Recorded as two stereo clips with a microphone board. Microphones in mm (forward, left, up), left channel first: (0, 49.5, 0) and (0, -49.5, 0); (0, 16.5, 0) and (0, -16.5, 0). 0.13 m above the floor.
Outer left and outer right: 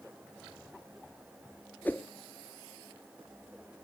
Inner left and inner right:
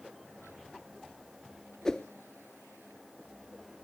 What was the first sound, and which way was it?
A whoosh, 20° left (ahead or behind).